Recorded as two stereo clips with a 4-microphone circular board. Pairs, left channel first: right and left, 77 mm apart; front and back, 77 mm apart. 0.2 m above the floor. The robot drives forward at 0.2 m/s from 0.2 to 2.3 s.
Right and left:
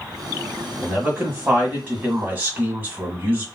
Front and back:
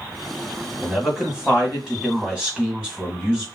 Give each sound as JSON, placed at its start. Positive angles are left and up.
{"t": 0.8, "sound": "a man speaking", "azimuth_deg": 105, "distance_m": 1.5}